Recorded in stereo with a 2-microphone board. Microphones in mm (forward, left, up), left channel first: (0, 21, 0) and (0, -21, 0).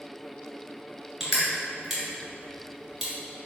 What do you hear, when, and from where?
1.2 s crushing: centre (ahead or behind), 2.0 m